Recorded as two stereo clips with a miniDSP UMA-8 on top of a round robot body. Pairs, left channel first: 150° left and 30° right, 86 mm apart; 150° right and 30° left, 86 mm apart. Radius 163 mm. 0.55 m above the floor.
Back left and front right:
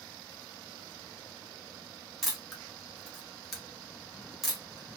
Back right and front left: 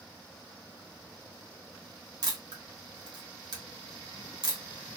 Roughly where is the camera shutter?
Ahead left.